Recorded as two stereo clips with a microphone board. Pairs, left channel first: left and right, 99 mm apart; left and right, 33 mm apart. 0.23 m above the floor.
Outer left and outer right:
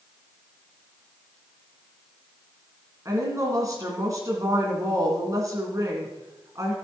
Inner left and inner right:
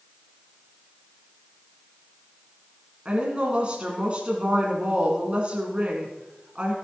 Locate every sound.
3.0 s a woman speaking: 35° right (ahead or behind), 2.5 m